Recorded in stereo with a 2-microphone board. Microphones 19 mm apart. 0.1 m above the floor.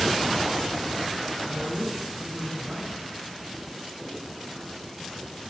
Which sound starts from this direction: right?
A man speaking, at 1.4 s.